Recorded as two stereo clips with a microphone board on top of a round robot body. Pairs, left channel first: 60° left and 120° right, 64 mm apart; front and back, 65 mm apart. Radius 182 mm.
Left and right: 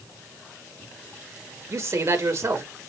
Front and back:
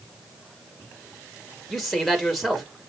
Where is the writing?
No writing in this recording.